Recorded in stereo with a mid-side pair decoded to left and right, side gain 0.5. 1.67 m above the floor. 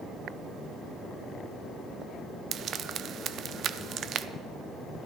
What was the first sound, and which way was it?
Frying, 55° right.